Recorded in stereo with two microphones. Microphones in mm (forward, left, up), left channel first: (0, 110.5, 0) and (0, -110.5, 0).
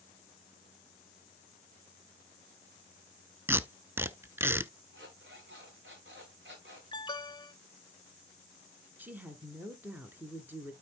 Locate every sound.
3.5 s tape being pulled: 10° right (ahead or behind), 0.6 m
4.9 s an alarm clock: 55° right (ahead or behind), 4 m
6.9 s an alarm: 20° left (ahead or behind), 0.9 m
9.0 s a woman speaking: 10° right (ahead or behind), 1.5 m